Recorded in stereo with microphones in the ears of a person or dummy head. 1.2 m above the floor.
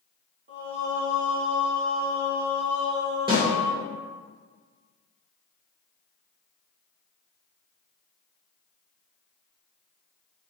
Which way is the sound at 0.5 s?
40° right (ahead or behind).